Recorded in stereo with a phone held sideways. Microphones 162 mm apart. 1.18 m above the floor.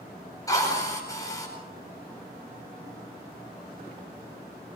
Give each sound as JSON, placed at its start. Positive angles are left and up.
{"t": 0.5, "sound": "a drill", "side_deg": 20, "distance_m": 8.0}